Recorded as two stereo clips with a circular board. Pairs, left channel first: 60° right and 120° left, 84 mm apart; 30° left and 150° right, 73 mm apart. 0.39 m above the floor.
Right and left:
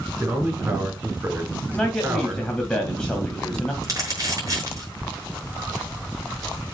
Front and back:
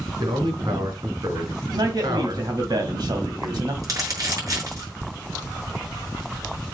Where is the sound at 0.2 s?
175° right, 5 m.